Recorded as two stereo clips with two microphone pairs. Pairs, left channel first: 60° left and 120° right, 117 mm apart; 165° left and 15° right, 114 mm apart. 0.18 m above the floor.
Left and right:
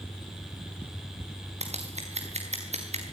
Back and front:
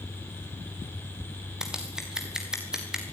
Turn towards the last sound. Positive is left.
turn(degrees=-100)